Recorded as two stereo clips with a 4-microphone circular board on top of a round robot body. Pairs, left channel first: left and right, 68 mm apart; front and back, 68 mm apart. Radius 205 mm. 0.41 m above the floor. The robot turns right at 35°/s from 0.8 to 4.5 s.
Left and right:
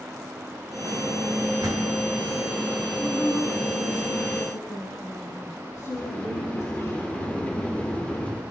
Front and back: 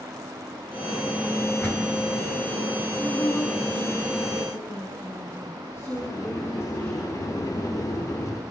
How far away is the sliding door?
About 2 m.